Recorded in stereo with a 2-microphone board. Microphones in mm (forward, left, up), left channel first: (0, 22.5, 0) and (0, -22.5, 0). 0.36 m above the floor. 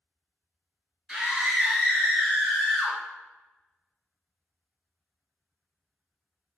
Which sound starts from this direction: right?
A scream, at 1.1 s.